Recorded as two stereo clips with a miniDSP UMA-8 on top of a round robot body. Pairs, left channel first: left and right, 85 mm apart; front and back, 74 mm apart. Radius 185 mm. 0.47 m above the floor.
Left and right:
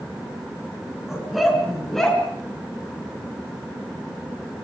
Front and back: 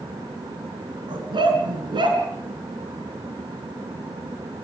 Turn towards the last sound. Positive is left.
turn(degrees=175)